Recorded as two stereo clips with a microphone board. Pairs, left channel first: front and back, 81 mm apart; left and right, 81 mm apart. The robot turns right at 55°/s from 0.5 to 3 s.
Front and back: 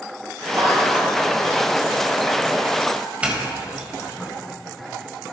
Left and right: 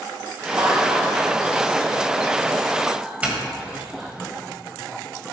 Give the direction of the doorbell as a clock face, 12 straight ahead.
4 o'clock.